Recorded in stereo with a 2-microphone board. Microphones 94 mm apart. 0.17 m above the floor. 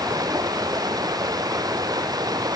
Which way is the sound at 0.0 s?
45° right (ahead or behind).